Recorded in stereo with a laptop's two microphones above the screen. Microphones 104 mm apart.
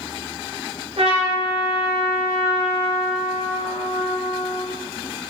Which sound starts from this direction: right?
A trumpet, at 1.0 s.